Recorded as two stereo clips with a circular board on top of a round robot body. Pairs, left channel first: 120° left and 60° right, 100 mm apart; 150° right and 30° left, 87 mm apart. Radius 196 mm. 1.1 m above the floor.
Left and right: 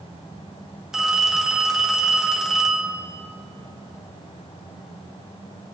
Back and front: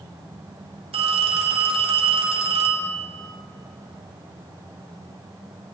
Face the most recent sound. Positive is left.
turn(degrees=25)